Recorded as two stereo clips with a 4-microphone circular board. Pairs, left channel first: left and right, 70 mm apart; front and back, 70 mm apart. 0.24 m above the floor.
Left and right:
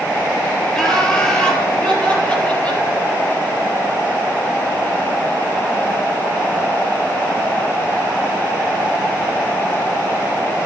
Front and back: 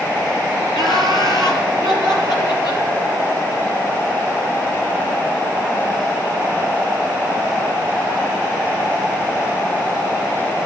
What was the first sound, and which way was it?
Laughter, 10° left.